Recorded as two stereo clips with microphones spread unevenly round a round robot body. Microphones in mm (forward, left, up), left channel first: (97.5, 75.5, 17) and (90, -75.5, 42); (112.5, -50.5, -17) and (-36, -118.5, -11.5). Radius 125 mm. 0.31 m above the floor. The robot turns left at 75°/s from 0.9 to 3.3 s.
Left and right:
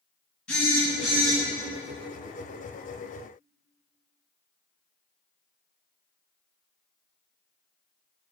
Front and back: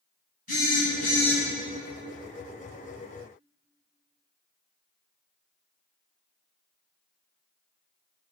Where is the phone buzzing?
10° left, 2 m; by 1.4 s 30° right, 2 m.